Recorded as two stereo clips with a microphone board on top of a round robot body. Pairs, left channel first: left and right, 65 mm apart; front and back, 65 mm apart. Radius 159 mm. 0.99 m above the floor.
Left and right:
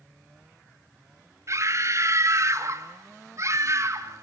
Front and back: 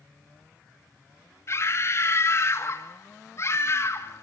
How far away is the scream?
About 2.5 m.